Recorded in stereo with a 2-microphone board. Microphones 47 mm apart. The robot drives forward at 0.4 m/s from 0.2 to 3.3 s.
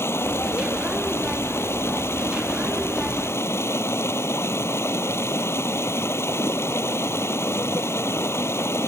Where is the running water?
65° left (ahead or behind); by 8.9 s 70° left (ahead or behind).